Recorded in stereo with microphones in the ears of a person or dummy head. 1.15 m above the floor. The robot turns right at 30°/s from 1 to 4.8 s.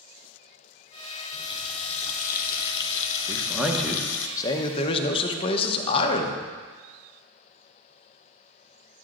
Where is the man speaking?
15° right, 0.8 m; by 6.4 s 35° left, 0.8 m.